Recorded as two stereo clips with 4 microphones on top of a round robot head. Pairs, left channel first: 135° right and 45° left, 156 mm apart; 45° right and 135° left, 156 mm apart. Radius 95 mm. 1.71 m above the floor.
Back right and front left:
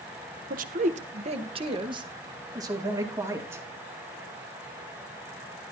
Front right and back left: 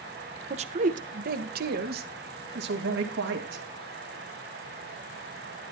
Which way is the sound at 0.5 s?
80° left.